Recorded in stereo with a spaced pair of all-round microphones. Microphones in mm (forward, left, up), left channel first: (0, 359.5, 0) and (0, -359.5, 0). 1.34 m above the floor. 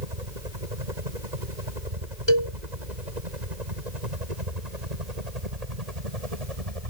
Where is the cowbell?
35° left (ahead or behind).